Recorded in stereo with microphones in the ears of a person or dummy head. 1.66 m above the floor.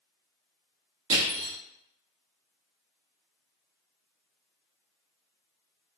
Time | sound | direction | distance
1.1 | crushing | 70° right (ahead or behind) | 1.7 m